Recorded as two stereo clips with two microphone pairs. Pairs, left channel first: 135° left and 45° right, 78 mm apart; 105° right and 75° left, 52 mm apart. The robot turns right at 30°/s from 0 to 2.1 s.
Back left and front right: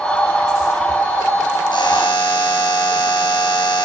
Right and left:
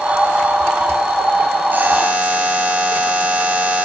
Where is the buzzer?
125° left, 4 m; by 3.9 s 135° left, 4 m.